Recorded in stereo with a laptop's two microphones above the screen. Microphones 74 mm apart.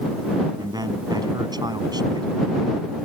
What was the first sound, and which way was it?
A man speaking, 65° right (ahead or behind).